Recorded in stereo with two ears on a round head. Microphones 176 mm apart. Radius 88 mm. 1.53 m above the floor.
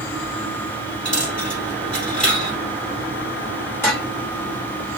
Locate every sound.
1.1 s a dropped coin: 5° left (ahead or behind), 2.5 m
3.8 s dishes clattering: 10° left (ahead or behind), 2.5 m